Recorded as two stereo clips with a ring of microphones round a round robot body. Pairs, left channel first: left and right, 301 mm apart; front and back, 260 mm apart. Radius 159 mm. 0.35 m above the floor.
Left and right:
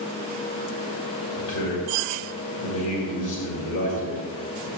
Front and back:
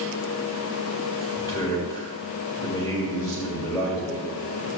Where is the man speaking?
70° left, 2 m.